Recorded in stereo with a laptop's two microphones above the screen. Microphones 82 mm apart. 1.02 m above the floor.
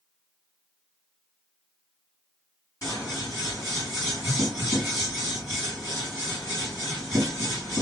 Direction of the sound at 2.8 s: 40° left (ahead or behind).